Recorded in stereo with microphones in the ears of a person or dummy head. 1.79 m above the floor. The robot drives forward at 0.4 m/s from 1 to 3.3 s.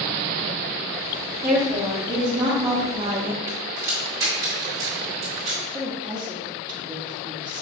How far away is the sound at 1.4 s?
About 1.4 m.